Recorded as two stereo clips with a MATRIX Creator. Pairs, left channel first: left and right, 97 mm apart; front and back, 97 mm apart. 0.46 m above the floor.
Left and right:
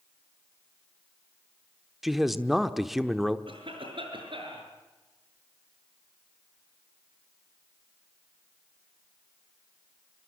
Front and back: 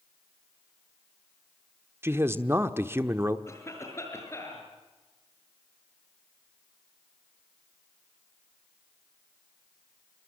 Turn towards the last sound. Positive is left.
turn(degrees=-60)